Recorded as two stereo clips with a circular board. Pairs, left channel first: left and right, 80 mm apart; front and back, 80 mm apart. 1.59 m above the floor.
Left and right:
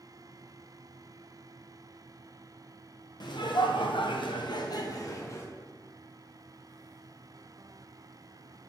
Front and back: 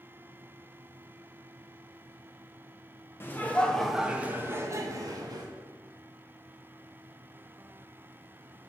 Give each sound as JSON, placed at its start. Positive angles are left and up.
{"t": 3.2, "sound": "laughter", "azimuth_deg": 60, "distance_m": 1.1}